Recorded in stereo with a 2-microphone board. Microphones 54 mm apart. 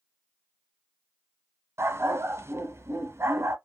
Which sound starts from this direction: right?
A dog barking, at 1.8 s.